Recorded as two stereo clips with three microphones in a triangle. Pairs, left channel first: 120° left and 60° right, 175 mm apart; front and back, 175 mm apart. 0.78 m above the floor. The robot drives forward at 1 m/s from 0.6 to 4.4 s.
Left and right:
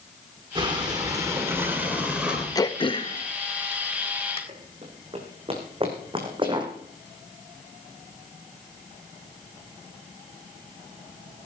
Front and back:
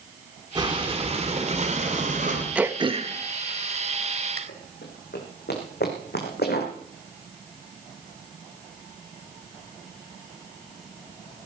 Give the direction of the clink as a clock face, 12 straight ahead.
I don't hear a clink.